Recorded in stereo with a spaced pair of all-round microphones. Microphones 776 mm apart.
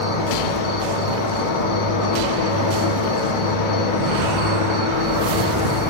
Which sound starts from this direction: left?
An insect, at 0.0 s.